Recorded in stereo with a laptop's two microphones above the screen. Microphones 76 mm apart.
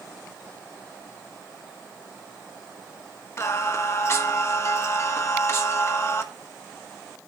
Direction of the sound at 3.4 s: 40° left (ahead or behind).